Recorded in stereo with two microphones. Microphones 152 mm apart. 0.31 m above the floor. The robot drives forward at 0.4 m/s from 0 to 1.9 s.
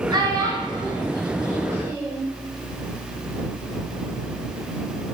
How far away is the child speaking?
About 0.9 m.